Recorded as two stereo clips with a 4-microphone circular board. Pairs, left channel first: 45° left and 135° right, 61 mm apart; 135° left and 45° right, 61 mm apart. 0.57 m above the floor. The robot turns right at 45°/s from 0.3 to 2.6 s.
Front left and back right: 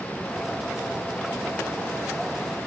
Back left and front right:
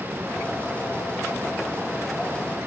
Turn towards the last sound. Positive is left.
No sound to turn to.